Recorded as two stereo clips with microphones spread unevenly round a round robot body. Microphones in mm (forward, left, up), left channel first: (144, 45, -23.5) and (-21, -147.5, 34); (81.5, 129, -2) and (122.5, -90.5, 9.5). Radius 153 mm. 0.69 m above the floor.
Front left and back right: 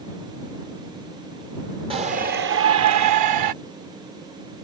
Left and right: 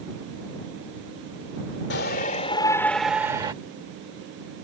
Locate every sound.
1.9 s a shout: 150° left; by 3.5 s 155° right